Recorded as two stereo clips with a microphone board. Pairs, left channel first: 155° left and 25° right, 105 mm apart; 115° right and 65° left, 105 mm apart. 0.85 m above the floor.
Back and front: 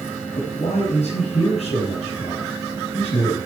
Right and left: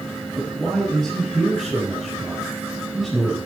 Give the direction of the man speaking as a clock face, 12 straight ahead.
7 o'clock.